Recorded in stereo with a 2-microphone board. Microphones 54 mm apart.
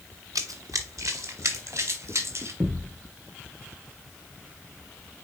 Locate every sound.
0.3 s running footsteps: 85° right, 1.2 m; by 2.5 s 55° right (ahead or behind), 3.5 m
2.6 s a thud: 55° right (ahead or behind), 3 m